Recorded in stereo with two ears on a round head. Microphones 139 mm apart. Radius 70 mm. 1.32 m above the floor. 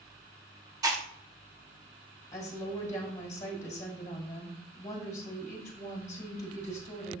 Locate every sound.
0.8 s chewing: 25° right (ahead or behind), 0.9 m
2.3 s a woman speaking: 20° left (ahead or behind), 1.5 m